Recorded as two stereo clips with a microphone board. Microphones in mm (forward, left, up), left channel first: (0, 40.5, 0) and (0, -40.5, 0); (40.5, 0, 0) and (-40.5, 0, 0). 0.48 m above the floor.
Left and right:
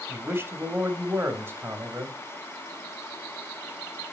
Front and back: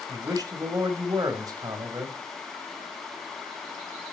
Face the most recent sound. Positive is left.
turn(degrees=-150)